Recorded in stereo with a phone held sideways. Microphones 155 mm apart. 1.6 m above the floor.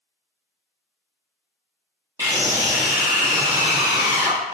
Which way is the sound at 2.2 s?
20° right (ahead or behind).